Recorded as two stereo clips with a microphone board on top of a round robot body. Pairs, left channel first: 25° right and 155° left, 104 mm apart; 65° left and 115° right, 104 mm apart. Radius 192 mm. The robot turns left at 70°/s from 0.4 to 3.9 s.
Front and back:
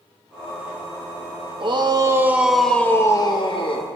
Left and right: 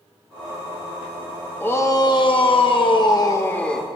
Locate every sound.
1.6 s a shout: 135° left, 1.5 m; by 3.9 s 25° right, 1.5 m